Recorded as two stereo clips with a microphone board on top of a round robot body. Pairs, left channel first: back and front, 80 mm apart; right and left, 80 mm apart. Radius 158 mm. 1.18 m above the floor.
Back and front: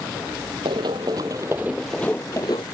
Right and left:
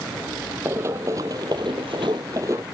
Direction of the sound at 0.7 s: 30° left.